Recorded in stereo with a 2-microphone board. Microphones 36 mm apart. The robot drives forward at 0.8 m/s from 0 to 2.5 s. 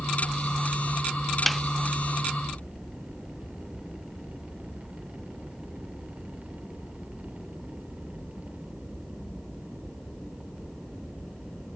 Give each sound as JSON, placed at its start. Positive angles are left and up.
{"t": 1.5, "sound": "a snare drum", "side_deg": 0}